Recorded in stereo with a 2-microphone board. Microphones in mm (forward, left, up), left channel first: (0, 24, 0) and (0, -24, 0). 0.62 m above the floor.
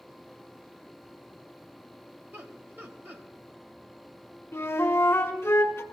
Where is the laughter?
40° right (ahead or behind), 3.5 m.